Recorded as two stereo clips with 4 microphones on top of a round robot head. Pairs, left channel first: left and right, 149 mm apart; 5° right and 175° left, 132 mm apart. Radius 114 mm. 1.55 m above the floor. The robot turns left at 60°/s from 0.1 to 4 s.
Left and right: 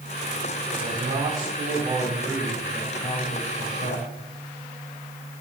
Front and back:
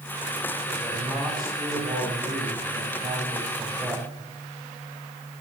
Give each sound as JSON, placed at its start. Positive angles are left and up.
{"t": 0.7, "sound": "a man speaking", "azimuth_deg": -70, "distance_m": 5.5}